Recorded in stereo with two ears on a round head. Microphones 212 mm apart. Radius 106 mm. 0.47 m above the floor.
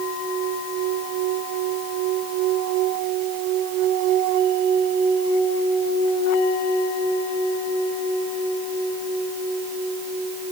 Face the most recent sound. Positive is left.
No sound to turn to.